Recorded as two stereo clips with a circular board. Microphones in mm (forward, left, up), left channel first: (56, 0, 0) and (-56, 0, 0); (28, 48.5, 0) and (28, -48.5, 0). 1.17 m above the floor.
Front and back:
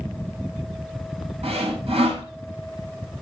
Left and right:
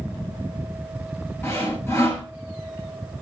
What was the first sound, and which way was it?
Sawing, 155° left.